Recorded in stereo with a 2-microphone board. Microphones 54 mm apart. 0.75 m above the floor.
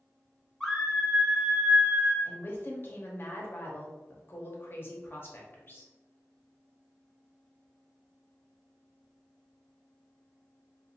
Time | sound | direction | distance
0.6 | a scream | 5° left (ahead or behind) | 1.0 m
2.2 | a woman speaking | 40° left (ahead or behind) | 0.9 m